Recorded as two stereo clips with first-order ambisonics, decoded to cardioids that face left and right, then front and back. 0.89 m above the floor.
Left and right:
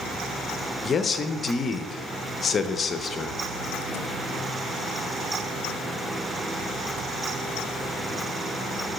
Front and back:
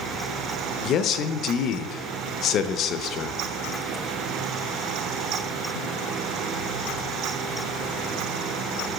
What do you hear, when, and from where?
0.8 s a man speaking: 30° left, 0.5 m